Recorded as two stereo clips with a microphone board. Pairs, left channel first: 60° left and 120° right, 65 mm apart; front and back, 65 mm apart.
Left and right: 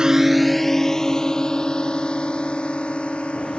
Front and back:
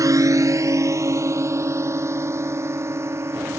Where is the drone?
160° left; by 3.6 s 130° left.